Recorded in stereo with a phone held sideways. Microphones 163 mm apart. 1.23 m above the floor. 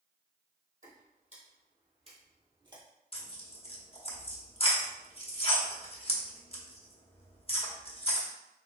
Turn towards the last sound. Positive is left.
turn(degrees=35)  # may be behind; listen again after turning